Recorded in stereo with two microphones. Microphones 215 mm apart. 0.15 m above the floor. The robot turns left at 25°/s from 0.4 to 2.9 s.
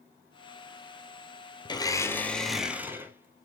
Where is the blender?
20° left, 1.2 m; by 3.5 s 10° right, 1.2 m.